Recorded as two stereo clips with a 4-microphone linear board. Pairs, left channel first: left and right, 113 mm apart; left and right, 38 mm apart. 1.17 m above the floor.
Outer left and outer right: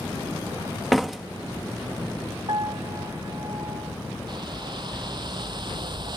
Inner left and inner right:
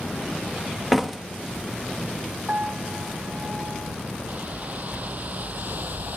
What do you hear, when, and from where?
0.9 s a door slam: centre (ahead or behind)
2.5 s a piano: 45° right (ahead or behind)
4.3 s a whoosh: 40° right (ahead or behind)